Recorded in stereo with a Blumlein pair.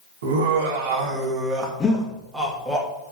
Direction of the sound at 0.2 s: 55° right.